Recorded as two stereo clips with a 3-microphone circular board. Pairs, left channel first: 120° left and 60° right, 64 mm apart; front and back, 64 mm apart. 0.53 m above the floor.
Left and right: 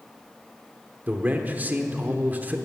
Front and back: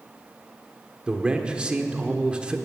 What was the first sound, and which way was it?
A man speaking, 110° right.